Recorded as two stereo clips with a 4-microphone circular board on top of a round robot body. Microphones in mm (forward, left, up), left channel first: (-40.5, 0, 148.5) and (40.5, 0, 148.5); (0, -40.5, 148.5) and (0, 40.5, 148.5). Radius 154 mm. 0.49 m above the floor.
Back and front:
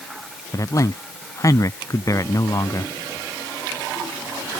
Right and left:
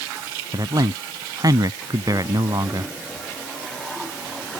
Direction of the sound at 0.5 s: 130° left.